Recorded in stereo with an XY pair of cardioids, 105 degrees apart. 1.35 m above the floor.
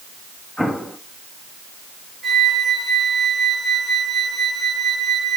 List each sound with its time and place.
0.6 s an explosion: 5° left, 2.5 m
2.2 s a flute: 30° right, 9 m